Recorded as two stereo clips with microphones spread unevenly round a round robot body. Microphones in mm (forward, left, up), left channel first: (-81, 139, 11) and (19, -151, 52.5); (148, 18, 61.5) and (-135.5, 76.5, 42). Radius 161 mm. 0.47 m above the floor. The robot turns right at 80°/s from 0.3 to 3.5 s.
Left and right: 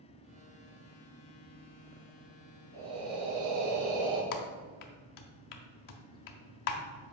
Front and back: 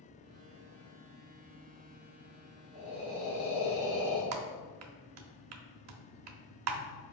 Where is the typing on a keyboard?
135° left, 0.8 m.